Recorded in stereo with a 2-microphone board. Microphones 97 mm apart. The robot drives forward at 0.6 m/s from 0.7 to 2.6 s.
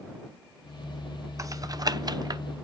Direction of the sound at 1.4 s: 35° right (ahead or behind).